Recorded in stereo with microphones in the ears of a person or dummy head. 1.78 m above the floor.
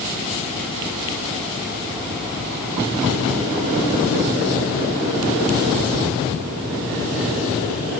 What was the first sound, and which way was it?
Only background noise.